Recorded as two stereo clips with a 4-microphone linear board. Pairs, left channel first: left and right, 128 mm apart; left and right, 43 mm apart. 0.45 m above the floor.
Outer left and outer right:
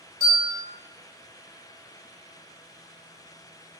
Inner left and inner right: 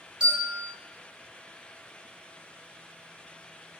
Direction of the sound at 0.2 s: 25° right (ahead or behind).